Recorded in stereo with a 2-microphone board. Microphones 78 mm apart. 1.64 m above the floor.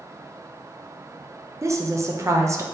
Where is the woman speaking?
40° right (ahead or behind), 0.6 m.